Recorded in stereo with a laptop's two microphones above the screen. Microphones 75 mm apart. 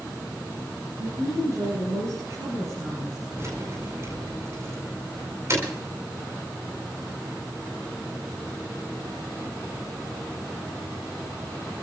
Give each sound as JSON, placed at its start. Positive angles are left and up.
{"t": 1.0, "sound": "a woman speaking", "side_deg": -35, "distance_m": 7.5}
{"t": 3.4, "sound": "keys jangling", "side_deg": -40, "distance_m": 4.5}